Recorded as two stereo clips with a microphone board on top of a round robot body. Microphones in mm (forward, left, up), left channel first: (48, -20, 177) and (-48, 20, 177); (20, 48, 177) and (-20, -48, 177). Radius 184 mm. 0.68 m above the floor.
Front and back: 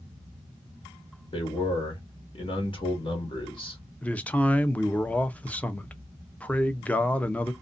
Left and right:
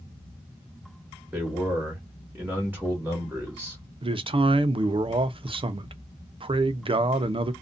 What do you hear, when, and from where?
1.3 s a man speaking: 40° right, 1.4 m
4.0 s a man speaking: 95° right, 0.6 m